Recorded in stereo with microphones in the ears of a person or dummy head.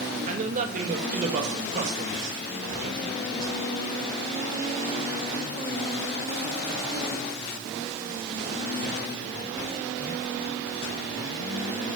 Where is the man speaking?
45° right (ahead or behind), 1.4 m.